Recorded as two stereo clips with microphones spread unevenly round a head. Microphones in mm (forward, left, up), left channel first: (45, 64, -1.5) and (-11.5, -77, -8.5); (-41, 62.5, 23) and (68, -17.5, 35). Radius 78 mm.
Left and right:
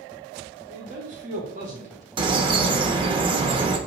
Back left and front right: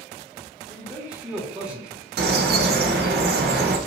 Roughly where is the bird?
Ahead right.